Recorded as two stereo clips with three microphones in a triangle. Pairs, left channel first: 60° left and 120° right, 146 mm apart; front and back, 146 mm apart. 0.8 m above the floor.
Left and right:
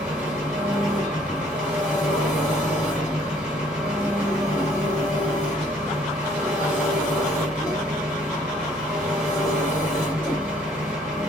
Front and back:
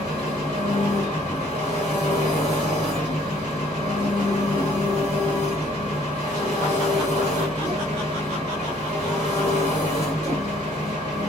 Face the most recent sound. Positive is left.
turn(degrees=-40)